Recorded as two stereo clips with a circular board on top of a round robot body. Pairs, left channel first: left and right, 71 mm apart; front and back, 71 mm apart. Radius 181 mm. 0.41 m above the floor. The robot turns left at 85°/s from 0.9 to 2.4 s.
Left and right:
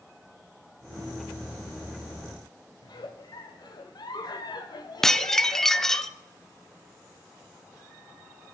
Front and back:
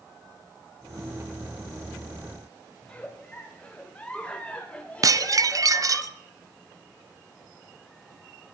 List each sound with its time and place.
2.8 s a giggle: 75° left, 1.1 m
5.0 s dishes clattering: 175° left, 0.5 m